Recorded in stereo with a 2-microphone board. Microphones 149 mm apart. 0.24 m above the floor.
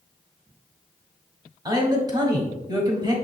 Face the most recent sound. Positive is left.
turn(degrees=-25)  # may be behind; listen again after turning